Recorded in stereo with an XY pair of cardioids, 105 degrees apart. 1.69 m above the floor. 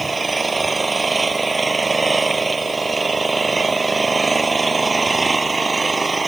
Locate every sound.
0.0 s an engine running: 25° right